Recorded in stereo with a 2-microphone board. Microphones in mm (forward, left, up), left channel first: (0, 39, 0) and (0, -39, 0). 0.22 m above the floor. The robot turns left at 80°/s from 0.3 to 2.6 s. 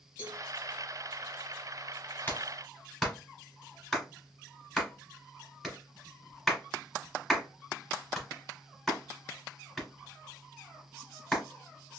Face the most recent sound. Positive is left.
turn(degrees=0)  # may be behind; listen again after turning